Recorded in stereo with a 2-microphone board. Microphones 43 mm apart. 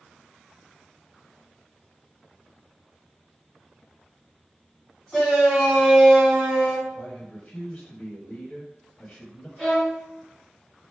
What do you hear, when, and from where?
5.1 s a shout: 10° left (ahead or behind), 2 m; by 6.8 s 25° right (ahead or behind), 1.5 m
6.9 s a man speaking: 30° left (ahead or behind), 1.4 m
9.6 s a violin: 5° right (ahead or behind), 1.9 m